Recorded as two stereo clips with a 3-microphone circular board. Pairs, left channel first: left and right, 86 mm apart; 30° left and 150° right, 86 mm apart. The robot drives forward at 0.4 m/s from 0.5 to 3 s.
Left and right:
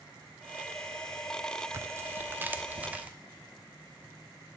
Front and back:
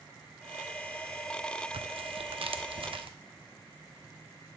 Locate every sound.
1.7 s tearing paper: 145° right, 0.5 m; by 3.1 s 165° right, 1.0 m